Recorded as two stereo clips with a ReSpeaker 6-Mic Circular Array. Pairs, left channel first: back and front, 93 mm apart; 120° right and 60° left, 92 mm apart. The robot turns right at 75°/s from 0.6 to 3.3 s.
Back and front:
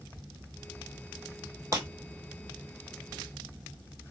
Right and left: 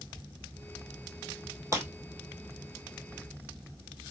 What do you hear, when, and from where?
1.7 s breaking glass: 30° left, 1.8 m; by 1.9 s 40° left, 1.8 m